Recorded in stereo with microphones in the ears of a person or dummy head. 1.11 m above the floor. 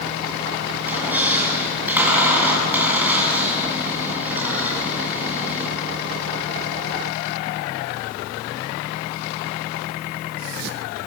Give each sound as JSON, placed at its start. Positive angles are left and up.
{"t": 0.8, "sound": "a squeak", "side_deg": -5, "distance_m": 8.0}